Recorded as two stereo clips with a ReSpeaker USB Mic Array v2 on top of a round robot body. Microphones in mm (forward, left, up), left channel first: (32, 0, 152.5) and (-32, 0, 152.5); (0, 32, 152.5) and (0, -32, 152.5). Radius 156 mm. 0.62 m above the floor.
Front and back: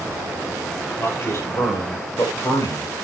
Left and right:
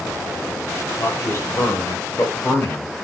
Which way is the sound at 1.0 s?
50° left.